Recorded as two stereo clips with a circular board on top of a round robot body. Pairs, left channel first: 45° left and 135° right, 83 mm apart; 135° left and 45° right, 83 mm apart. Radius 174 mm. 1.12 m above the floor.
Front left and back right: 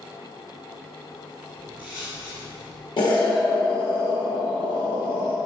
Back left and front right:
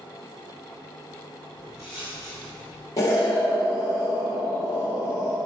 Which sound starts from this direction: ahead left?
Footsteps, at 1.6 s.